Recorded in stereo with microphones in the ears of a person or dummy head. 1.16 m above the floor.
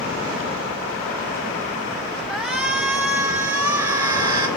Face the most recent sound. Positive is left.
turn(degrees=-20)  # may be behind; listen again after turning